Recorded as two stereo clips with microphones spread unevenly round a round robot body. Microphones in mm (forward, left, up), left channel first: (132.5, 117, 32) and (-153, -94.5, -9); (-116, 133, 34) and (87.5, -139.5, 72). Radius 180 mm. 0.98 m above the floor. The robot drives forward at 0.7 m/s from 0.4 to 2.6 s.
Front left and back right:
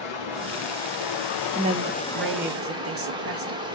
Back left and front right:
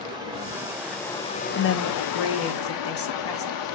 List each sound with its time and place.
0.0 s running water: 25° left, 1.1 m; by 3.8 s 140° left, 0.8 m
1.6 s a woman speaking: 145° left, 0.6 m; by 3.7 s 170° left, 1.2 m